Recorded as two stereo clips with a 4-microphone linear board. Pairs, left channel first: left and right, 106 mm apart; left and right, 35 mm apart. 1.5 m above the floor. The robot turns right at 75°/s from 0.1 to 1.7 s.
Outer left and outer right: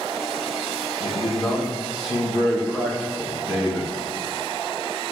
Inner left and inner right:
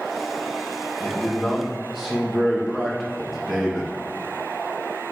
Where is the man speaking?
130° left, 1.5 m; by 3.9 s 175° right, 1.5 m.